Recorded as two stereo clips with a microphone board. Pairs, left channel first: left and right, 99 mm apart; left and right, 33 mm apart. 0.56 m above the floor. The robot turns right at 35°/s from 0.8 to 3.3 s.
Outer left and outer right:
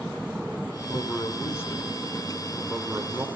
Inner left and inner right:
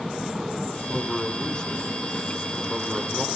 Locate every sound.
0.9 s a man speaking: 125° left, 1.6 m; by 3.3 s 150° right, 1.6 m